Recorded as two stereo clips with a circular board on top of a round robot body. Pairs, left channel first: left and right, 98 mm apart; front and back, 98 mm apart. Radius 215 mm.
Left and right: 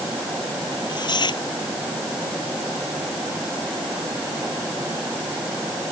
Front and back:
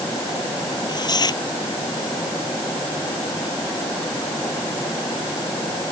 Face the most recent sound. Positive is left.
turn(degrees=45)